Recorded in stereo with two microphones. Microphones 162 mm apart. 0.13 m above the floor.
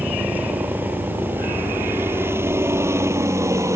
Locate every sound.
0.0 s a helicopter: 10° right (ahead or behind); by 3.8 s 20° right (ahead or behind)